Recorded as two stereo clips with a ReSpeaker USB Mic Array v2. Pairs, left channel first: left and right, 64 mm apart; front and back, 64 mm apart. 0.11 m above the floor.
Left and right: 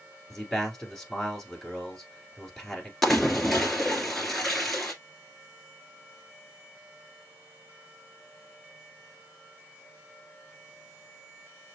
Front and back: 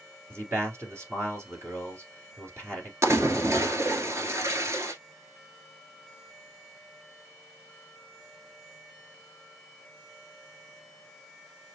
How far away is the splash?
About 1.3 m.